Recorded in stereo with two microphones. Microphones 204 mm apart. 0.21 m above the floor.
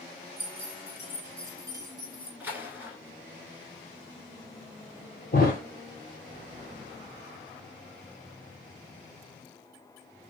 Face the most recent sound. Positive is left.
turn(degrees=50)  # may be behind; listen again after turning